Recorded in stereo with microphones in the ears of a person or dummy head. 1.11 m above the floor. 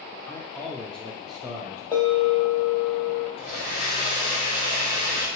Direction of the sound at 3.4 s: 45° left (ahead or behind).